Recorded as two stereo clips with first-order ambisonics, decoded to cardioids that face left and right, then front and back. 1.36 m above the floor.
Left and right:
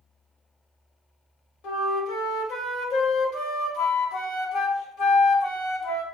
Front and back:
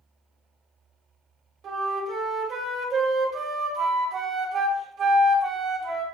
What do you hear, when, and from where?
1.6 s a flute: 125° left, 1.7 m